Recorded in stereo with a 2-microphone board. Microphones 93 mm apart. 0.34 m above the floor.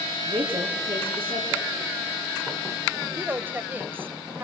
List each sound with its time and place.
0.3 s a woman speaking: 70° right (ahead or behind), 4.5 m
3.1 s a woman speaking: 20° right (ahead or behind), 1.2 m